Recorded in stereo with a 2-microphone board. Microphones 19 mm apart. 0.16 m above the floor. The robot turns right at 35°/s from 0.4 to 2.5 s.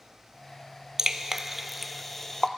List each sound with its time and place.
1.0 s dripping: 30° right (ahead or behind), 0.6 m; by 2.5 s 25° left (ahead or behind), 0.6 m